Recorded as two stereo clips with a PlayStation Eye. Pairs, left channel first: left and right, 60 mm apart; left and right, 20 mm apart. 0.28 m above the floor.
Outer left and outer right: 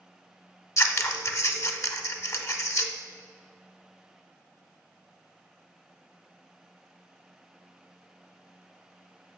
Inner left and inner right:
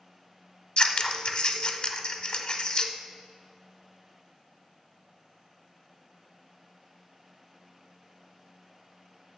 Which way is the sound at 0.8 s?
50° left (ahead or behind).